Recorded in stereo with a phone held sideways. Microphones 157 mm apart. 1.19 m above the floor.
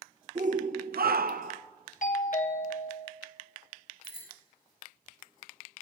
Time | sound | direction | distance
0.3 | a shout | 50° right (ahead or behind) | 0.8 m
2.0 | a doorbell | 55° left (ahead or behind) | 0.9 m
4.0 | a bicycle bell | 85° left | 4.5 m